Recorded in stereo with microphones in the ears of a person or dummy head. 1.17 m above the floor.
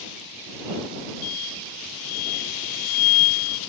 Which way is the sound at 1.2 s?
85° left.